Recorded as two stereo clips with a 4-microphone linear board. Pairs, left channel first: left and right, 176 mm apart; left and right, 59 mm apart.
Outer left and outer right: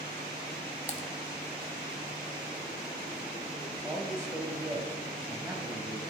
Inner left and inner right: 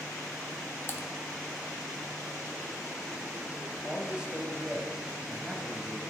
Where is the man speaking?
15° right (ahead or behind), 1.4 m.